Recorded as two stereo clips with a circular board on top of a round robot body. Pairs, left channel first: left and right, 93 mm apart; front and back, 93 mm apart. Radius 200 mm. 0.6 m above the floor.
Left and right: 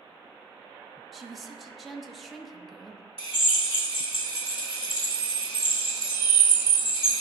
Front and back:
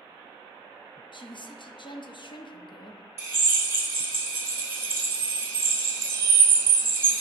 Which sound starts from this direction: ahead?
A woman speaking, at 1.1 s.